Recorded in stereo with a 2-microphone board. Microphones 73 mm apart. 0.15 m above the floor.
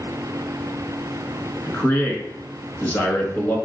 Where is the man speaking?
25° left (ahead or behind), 1.3 m.